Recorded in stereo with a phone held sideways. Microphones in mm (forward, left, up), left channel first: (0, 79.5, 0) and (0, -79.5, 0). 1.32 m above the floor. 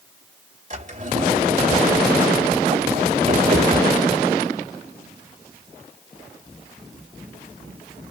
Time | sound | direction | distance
0.7 | a drawer | 50° right (ahead or behind) | 2.5 m